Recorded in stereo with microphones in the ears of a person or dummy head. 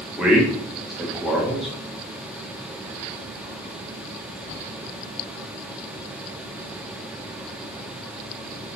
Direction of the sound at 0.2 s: Centre (ahead or behind).